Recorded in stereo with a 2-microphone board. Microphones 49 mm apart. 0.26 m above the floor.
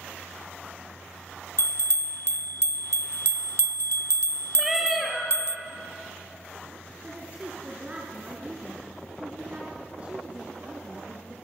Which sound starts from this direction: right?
A woman speaking, at 7.0 s.